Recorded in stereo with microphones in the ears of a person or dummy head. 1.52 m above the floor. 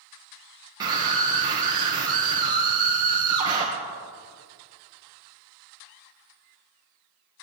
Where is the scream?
20° right (ahead or behind), 1.8 m.